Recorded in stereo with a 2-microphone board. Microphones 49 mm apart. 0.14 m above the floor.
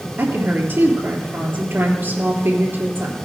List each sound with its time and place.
0.2 s a woman speaking: 55° right (ahead or behind), 3 m